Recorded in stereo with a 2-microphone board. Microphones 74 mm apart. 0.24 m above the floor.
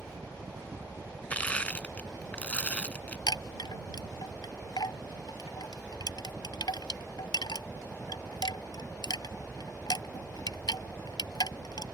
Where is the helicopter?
55° right (ahead or behind).